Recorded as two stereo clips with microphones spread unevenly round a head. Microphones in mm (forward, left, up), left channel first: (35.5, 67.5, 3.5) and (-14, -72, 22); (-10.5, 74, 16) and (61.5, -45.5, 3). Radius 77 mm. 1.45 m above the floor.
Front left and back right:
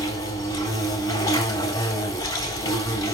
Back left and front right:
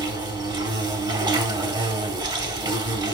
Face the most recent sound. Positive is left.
turn(degrees=0)